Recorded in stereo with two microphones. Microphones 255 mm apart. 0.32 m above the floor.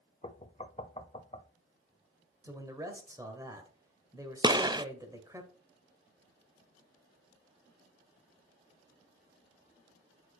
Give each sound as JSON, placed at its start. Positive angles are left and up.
{"t": 0.2, "sound": "knocking", "side_deg": 25, "distance_m": 0.7}
{"t": 2.4, "sound": "a man speaking", "side_deg": -15, "distance_m": 1.6}
{"t": 4.4, "sound": "a gunshot", "side_deg": -15, "distance_m": 0.6}